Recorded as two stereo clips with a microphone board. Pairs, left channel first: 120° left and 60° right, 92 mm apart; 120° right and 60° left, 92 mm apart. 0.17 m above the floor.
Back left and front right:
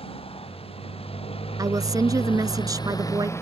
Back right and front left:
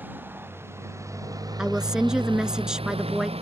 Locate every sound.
0.0 s a motorcycle: 130° left; by 3.4 s 55° left
1.6 s a woman speaking: 20° right